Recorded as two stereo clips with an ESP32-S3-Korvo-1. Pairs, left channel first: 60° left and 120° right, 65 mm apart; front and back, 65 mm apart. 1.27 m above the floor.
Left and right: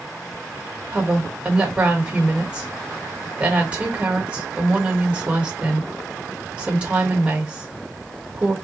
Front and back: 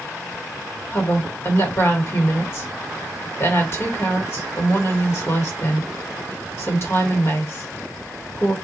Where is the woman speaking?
50° right, 1.7 m.